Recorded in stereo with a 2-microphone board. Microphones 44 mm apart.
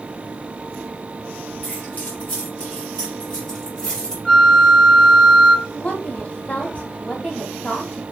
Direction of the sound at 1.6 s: 35° left (ahead or behind).